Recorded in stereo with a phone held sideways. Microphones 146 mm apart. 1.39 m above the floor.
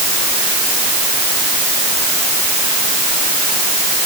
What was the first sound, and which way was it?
Only background noise.